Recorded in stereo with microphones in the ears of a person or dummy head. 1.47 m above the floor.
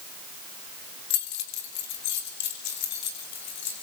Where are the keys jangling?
70° left (ahead or behind), 2.5 m; by 3.8 s 60° left (ahead or behind), 6 m.